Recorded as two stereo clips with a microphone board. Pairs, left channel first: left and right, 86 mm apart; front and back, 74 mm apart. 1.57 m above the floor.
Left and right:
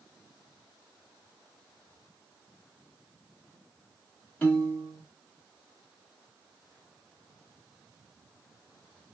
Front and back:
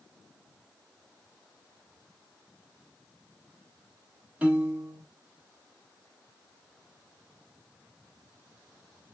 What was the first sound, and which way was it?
A piano, 130° left.